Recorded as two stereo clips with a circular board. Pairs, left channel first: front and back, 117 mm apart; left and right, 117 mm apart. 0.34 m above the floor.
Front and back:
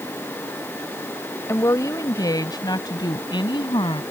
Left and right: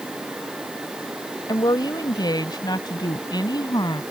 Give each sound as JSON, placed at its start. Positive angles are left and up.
{"t": 1.5, "sound": "a woman speaking", "azimuth_deg": 55}